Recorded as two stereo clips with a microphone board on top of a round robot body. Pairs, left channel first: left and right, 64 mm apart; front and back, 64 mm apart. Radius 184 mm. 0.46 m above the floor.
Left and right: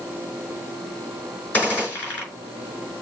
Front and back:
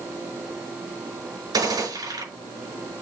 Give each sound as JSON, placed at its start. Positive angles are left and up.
{"t": 1.5, "sound": "a gunshot", "azimuth_deg": 155, "distance_m": 5.0}